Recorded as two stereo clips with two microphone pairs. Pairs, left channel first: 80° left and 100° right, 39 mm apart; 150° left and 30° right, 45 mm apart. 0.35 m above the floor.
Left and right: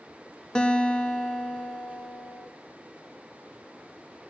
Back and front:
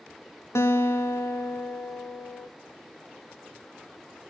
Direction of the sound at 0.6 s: 150° left.